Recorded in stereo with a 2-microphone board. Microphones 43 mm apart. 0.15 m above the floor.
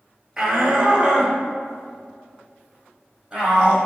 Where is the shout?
15° right (ahead or behind), 2 m.